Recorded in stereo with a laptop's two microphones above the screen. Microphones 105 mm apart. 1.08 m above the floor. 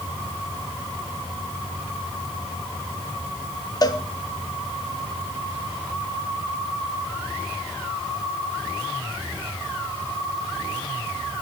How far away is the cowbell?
About 1.1 m.